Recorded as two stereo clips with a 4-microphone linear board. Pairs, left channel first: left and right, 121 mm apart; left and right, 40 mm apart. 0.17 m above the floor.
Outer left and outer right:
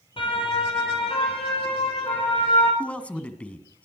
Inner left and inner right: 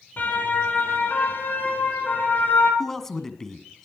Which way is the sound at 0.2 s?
45° left (ahead or behind).